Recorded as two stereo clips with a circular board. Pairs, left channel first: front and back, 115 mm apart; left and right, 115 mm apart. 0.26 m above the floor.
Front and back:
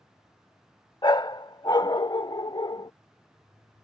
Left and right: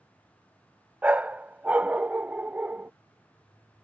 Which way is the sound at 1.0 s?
20° right.